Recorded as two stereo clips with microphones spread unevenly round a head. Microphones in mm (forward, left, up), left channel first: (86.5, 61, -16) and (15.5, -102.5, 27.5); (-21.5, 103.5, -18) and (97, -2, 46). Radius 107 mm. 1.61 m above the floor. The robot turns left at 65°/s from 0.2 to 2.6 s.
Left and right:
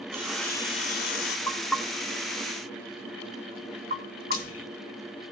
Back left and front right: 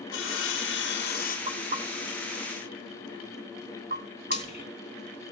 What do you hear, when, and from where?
0.1 s sawing: 170° left, 2.5 m; by 1.4 s 95° left, 2.5 m
1.5 s knocking: 10° right, 3 m; by 4.4 s 80° right, 3 m
4.3 s frying: 90° left, 9 m